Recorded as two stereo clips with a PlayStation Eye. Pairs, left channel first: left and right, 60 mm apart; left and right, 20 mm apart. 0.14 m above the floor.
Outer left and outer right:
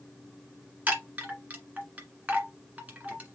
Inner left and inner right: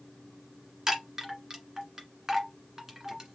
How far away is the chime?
About 1.6 m.